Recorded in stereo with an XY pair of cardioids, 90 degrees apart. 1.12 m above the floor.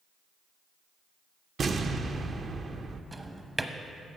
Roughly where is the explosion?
Ahead right.